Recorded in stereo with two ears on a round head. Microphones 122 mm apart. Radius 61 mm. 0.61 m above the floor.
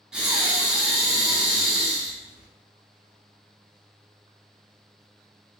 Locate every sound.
0.1 s breathing: 5° right (ahead or behind), 0.8 m